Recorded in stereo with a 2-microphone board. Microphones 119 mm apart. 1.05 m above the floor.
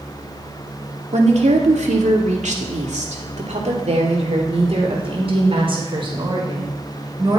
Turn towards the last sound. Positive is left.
turn(degrees=-40)  # may be behind; listen again after turning